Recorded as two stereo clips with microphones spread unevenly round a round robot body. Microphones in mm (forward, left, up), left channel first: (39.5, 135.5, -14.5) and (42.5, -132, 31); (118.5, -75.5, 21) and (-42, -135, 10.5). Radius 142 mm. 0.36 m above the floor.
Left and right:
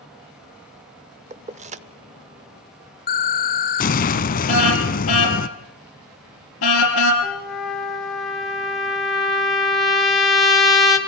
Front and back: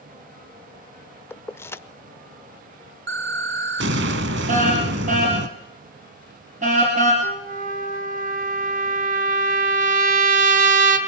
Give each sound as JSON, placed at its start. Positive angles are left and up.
{"t": 1.3, "sound": "keys jangling", "azimuth_deg": -45, "distance_m": 0.6}
{"t": 3.1, "sound": "an explosion", "azimuth_deg": 155, "distance_m": 0.7}
{"t": 4.5, "sound": "a car horn", "azimuth_deg": 135, "distance_m": 4.0}
{"t": 7.2, "sound": "a trumpet", "azimuth_deg": 175, "distance_m": 1.8}